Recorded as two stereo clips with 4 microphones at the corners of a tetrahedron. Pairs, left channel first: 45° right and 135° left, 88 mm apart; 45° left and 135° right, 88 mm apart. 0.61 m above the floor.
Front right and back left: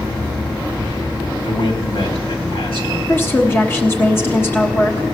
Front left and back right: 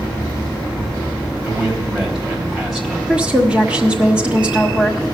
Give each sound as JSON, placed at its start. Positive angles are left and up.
{"t": 1.4, "sound": "a man speaking", "azimuth_deg": -50, "distance_m": 3.5}
{"t": 3.1, "sound": "a woman speaking", "azimuth_deg": -70, "distance_m": 1.1}